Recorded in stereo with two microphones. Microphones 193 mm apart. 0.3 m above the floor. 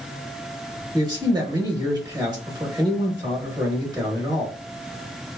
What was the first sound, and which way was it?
A man speaking, 20° right (ahead or behind).